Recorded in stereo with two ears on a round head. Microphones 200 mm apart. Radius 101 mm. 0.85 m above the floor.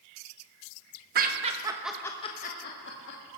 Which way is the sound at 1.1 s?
40° right (ahead or behind).